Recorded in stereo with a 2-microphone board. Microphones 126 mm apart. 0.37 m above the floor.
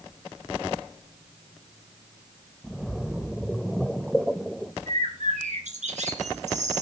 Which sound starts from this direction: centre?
A splash, at 2.6 s.